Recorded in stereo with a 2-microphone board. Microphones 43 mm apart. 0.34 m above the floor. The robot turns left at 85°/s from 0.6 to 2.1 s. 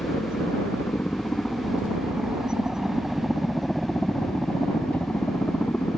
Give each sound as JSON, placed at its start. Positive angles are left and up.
{"t": 0.0, "sound": "a helicopter", "side_deg": 65}